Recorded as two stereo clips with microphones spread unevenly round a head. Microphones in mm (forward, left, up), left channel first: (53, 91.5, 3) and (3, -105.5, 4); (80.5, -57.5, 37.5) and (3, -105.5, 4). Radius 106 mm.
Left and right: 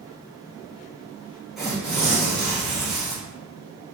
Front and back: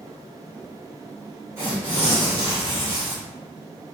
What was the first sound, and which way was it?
Tearing paper, 165° left.